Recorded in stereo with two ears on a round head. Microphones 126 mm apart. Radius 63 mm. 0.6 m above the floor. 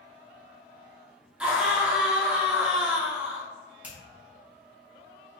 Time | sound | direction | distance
1.4 | a scream | 10° right (ahead or behind) | 0.8 m
3.8 | a finger snap | 10° right (ahead or behind) | 1.4 m